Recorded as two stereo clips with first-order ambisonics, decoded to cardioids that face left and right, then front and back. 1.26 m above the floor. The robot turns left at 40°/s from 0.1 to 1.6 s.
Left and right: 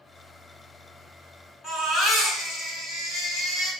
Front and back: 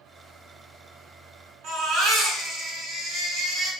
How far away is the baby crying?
About 1.7 m.